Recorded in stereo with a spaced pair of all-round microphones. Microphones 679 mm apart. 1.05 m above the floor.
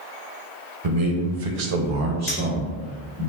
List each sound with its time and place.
0.8 s a man speaking: 60° right (ahead or behind), 0.9 m; by 3.3 s 15° left (ahead or behind), 0.9 m
2.3 s a clink: 50° left (ahead or behind), 1.0 m